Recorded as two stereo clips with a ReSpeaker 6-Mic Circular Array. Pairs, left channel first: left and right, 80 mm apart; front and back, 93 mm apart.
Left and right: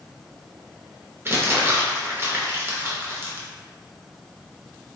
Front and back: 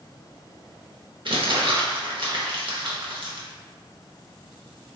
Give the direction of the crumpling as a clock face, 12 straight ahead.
5 o'clock.